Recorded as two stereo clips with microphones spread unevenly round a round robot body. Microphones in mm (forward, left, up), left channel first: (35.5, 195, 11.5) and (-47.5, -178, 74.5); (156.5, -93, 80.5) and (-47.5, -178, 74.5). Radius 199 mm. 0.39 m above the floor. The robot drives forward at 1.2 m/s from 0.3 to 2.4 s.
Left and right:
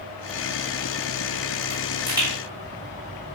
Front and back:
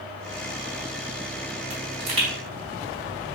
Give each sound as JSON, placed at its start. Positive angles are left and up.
{"t": 1.7, "sound": "a pop", "azimuth_deg": 170, "distance_m": 3.0}